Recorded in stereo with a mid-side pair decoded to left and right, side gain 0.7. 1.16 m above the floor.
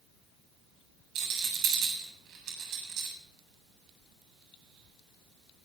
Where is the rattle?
50° right, 8 m.